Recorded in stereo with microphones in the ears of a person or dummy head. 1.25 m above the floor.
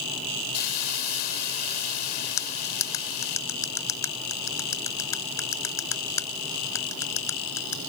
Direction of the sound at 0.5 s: 60° left (ahead or behind).